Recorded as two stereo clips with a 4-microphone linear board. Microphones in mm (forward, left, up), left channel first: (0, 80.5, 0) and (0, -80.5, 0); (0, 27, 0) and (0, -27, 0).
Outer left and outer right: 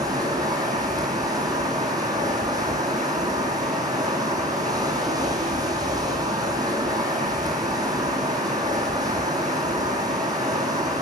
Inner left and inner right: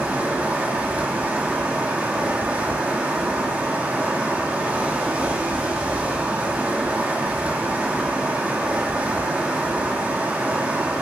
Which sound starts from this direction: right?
Running water, at 0.0 s.